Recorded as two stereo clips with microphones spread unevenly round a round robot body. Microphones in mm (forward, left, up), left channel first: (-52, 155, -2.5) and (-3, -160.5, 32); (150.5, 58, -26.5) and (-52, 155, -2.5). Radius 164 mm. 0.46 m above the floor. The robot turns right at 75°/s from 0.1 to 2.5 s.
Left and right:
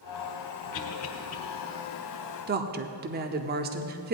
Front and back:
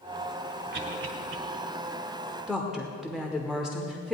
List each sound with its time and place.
0.7 s a cough: 115° left, 2.5 m; by 1.4 s 165° left, 2.5 m
2.5 s a woman speaking: 110° right, 0.7 m; by 4.1 s 105° right, 0.7 m